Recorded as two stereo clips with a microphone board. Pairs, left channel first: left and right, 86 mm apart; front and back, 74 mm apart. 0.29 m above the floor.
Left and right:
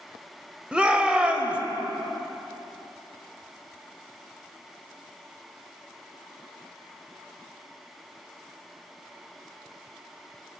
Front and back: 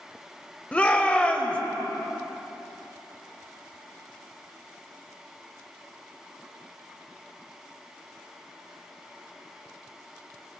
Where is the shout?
35° right, 0.9 m.